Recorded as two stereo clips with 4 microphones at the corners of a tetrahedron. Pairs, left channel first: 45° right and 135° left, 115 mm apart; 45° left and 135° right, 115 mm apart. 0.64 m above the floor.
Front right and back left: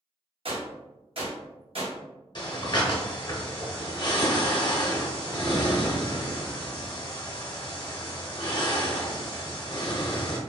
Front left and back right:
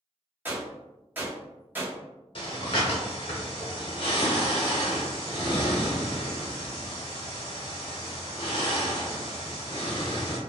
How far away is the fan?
No fan in this recording.